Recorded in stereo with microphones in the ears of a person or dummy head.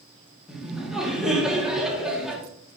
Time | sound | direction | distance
0.5 | laughter | 5° right (ahead or behind) | 1.1 m